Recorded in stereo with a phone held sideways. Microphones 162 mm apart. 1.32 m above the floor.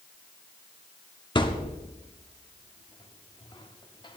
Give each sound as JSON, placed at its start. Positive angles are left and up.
{"t": 1.4, "sound": "a thud", "side_deg": 30, "distance_m": 1.1}